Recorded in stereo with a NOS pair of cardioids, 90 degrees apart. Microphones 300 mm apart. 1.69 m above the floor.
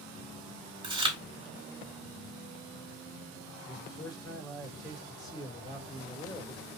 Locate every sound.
0.8 s chewing: 15° right, 2.5 m
3.6 s a man speaking: 15° left, 3 m